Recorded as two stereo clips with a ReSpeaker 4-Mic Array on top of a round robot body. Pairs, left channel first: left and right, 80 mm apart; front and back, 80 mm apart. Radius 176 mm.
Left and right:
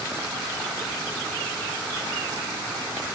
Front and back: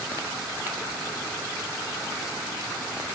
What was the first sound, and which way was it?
Only background noise.